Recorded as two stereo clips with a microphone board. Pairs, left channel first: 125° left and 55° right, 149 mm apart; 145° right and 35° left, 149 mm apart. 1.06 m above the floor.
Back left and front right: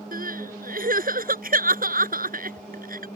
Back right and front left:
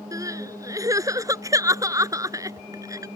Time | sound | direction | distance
0.1 | crying | 35° right | ?